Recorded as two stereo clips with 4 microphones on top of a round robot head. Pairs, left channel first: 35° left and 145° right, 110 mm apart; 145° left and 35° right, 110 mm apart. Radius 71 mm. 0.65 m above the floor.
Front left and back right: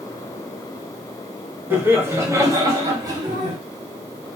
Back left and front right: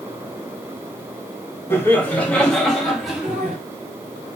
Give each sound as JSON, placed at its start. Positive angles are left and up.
{"t": 1.7, "sound": "laughter", "azimuth_deg": 180, "distance_m": 1.2}